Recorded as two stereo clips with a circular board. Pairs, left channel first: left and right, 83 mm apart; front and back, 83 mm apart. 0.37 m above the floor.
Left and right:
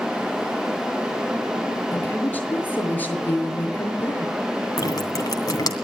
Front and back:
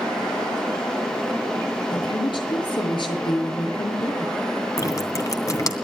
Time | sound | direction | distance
1.9 | a woman speaking | 20° left | 6.5 m
4.8 | dripping | 45° left | 2.5 m